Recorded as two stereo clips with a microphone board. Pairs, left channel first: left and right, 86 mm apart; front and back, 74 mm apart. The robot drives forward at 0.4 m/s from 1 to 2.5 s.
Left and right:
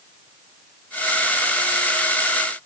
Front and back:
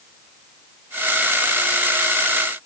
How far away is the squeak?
I don't hear a squeak.